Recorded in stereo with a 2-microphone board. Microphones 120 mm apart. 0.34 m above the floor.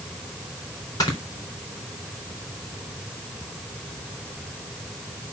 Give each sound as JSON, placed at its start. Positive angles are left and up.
{"t": 1.0, "sound": "snoring", "side_deg": 30, "distance_m": 4.0}